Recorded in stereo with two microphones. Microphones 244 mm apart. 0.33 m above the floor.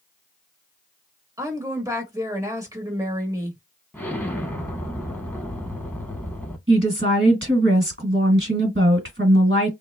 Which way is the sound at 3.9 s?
10° left (ahead or behind).